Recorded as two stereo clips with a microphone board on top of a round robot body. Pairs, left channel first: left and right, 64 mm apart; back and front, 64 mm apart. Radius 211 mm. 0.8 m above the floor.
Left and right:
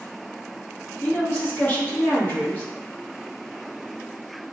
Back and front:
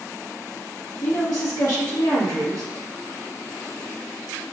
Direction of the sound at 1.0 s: 150° left.